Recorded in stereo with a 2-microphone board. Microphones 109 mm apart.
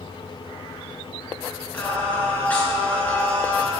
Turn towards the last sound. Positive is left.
turn(degrees=15)  # may be behind; listen again after turning